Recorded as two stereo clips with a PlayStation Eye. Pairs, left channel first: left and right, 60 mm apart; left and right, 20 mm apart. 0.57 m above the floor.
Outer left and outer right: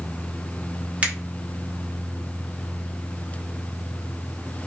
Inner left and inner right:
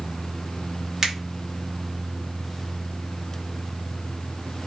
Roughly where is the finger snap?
Right.